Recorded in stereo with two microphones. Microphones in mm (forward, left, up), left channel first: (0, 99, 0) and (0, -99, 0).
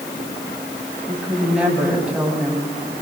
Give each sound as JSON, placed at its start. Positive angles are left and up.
{"t": 1.1, "sound": "a woman speaking", "side_deg": -5, "distance_m": 9.0}